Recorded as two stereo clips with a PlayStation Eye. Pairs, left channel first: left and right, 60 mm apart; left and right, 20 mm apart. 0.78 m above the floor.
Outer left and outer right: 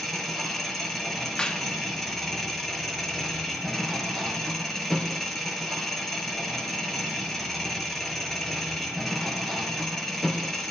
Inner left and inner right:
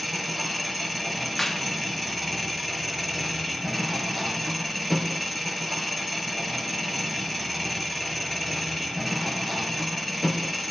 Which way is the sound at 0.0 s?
5° left (ahead or behind).